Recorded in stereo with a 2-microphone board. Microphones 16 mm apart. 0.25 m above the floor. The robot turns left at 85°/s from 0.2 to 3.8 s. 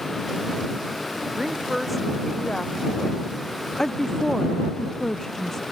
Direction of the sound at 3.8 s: 25° left (ahead or behind).